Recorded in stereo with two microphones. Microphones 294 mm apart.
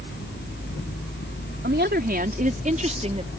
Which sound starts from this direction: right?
A woman speaking, at 1.6 s.